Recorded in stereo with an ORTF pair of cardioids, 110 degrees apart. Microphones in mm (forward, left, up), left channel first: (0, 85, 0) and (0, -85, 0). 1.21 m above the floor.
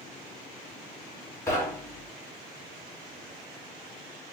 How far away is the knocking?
About 1.3 m.